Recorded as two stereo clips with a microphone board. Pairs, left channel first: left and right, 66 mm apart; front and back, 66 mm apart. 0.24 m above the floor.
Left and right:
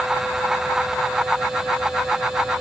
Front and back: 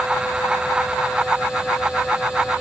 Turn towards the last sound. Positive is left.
No sound to turn to.